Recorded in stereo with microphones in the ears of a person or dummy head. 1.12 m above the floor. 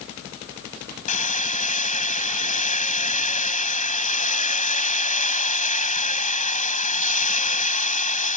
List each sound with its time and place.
1.1 s hammering: 40° left (ahead or behind)